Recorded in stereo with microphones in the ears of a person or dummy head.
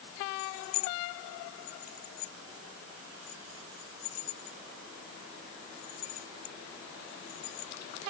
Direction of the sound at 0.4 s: 50° left (ahead or behind).